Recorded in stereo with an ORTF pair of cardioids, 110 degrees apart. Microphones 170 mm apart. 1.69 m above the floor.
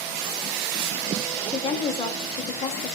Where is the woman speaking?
35° left, 0.8 m.